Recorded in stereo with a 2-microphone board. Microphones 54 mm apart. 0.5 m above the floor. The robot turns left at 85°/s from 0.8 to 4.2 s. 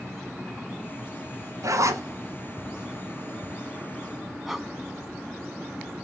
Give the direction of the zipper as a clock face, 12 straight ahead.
3 o'clock.